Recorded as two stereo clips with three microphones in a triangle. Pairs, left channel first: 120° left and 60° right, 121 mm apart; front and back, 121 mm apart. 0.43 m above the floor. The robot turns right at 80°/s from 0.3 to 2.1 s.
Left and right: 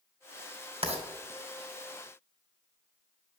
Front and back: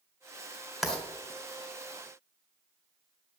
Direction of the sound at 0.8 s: 90° right.